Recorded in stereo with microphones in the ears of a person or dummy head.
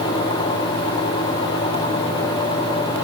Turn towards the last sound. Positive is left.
No sound to turn to.